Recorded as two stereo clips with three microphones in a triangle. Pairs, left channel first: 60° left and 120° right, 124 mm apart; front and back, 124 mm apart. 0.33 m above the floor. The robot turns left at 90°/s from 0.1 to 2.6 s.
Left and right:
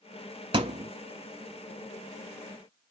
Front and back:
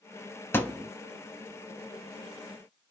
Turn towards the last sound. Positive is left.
turn(degrees=105)